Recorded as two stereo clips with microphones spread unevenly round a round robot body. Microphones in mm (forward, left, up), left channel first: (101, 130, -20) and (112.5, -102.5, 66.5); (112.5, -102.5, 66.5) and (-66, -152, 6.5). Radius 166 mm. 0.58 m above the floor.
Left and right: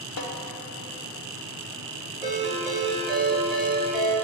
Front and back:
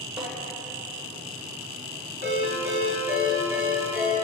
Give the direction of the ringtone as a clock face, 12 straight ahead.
6 o'clock.